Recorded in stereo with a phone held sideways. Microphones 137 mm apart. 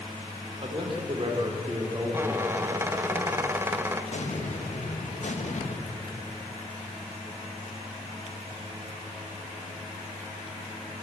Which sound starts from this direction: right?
A man speaking, at 0.6 s.